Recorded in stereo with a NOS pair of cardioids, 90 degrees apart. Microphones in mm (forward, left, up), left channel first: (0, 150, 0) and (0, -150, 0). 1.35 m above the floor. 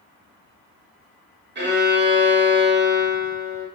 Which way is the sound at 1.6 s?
35° right.